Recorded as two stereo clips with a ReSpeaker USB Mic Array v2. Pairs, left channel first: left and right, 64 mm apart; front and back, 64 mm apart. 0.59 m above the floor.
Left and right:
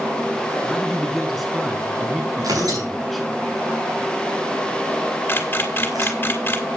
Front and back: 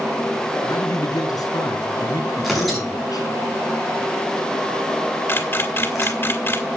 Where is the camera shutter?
40° left, 2 m.